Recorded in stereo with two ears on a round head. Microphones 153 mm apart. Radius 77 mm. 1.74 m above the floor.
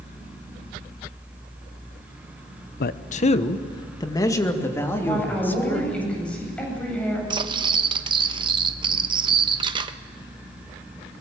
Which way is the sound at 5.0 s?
5° left (ahead or behind).